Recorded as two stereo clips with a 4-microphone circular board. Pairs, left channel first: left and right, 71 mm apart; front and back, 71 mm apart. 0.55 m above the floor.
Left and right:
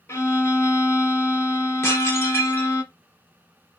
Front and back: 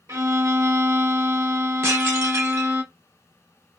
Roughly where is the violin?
Behind left.